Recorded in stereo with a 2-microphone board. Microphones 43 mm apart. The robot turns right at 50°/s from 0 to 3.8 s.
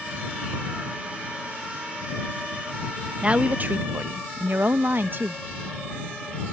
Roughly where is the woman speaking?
Right.